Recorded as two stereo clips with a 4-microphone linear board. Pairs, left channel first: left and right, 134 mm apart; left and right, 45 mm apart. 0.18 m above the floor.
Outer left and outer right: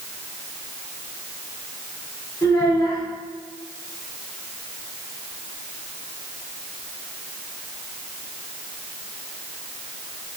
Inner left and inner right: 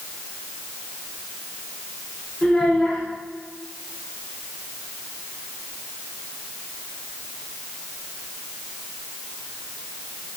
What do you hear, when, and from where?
2.4 s a child speaking: 30° left (ahead or behind), 1.2 m